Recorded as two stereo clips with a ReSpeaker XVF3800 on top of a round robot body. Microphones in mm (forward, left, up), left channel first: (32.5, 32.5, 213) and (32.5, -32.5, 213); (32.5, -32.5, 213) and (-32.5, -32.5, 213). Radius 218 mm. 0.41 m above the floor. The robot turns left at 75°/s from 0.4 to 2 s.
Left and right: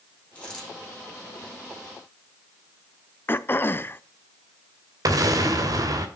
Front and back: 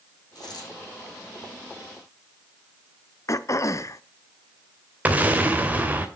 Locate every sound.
0.3 s a dropped coin: 20° left, 6.5 m; by 0.7 s 5° right, 6.5 m
3.3 s throat clearing: 35° left, 0.9 m
5.0 s an explosion: 115° right, 2.5 m